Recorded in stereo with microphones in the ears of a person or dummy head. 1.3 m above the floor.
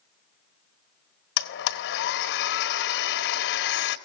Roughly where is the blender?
Left.